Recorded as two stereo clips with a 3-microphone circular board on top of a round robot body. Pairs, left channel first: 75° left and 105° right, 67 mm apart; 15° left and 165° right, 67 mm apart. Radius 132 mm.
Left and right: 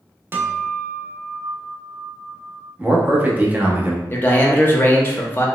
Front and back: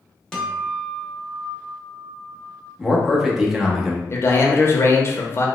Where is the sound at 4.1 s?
35° left, 0.8 m.